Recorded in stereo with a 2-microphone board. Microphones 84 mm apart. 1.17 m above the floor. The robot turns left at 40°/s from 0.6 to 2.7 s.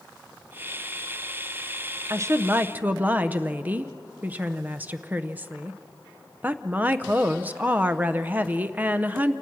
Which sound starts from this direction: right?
A woman speaking, at 2.1 s.